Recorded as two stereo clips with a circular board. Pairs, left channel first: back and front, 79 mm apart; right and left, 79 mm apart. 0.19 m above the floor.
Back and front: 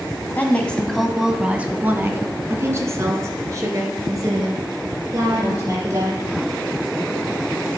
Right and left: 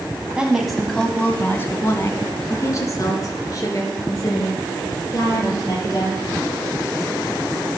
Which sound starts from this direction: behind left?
A woman speaking, at 0.3 s.